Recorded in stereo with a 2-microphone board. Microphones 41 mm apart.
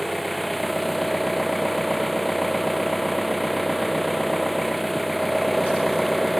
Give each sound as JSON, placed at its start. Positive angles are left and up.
{"t": 0.0, "sound": "an engine running", "side_deg": 0}